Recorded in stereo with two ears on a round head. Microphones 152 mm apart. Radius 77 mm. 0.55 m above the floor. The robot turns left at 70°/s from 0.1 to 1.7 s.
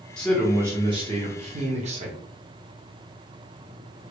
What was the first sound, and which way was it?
A man speaking, 10° left.